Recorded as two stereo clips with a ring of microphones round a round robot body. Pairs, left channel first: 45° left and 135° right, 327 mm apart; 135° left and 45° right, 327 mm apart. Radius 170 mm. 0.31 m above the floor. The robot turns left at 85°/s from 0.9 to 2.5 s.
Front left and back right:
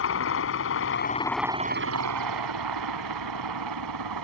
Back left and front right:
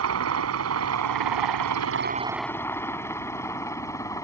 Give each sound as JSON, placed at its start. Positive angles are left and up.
{"t": 0.0, "sound": "a helicopter", "azimuth_deg": -5}